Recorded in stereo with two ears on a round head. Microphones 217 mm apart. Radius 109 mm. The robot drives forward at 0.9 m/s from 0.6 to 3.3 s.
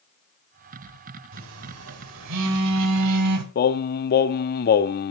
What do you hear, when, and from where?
1.3 s a phone buzzing: 55° right (ahead or behind), 2.5 m; by 3.5 s 75° right (ahead or behind), 2 m
3.5 s singing: 40° left (ahead or behind), 0.5 m